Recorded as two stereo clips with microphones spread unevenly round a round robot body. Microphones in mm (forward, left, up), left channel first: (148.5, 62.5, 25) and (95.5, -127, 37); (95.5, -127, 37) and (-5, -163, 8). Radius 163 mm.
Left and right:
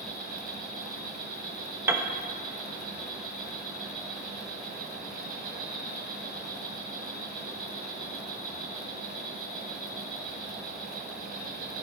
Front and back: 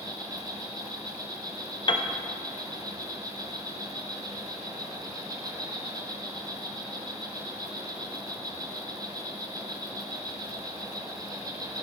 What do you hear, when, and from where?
0.0 s an insect: 145° right, 2 m
1.9 s a piano: 25° right, 1.1 m